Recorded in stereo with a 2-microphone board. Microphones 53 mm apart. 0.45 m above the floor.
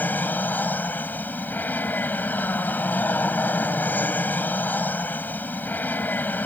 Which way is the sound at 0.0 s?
35° left (ahead or behind).